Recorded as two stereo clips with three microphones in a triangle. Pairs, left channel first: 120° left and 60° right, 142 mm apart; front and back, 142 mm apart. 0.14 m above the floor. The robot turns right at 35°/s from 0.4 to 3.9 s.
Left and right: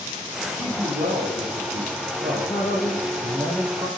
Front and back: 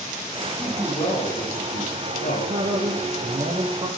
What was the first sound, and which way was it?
A man speaking, 80° right.